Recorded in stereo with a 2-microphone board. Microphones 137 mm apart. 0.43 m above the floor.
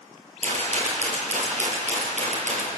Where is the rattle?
60° right (ahead or behind), 6 m.